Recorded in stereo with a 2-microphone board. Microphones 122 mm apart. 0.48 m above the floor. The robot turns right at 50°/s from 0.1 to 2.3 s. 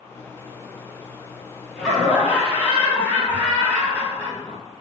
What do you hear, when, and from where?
1.8 s laughter: centre (ahead or behind), 0.7 m; by 4.6 s 15° right (ahead or behind), 0.7 m